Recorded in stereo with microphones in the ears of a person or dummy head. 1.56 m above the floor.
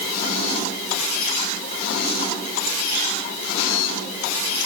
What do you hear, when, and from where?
Only background noise.